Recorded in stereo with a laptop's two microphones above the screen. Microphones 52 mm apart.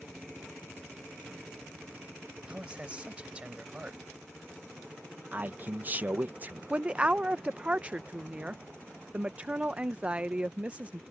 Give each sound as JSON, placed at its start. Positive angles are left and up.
{"t": 2.5, "sound": "a man speaking", "side_deg": -20}
{"t": 5.3, "sound": "a man speaking", "side_deg": -35}
{"t": 6.7, "sound": "a woman speaking", "side_deg": -25}